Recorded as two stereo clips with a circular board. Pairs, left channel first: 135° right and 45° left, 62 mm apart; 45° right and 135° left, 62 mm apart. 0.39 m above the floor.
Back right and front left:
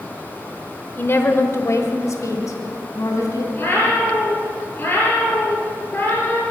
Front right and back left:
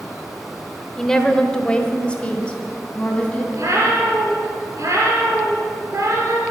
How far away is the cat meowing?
About 4 m.